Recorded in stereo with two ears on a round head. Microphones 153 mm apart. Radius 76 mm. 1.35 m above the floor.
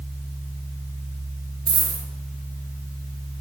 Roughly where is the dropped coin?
Right.